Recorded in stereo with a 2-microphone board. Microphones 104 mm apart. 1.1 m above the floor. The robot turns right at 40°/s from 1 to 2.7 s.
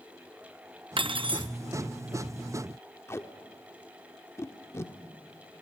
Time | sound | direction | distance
1.0 | cutlery clinking | 55° right (ahead or behind) | 0.6 m
3.1 | tape being pulled | 25° left (ahead or behind) | 1.1 m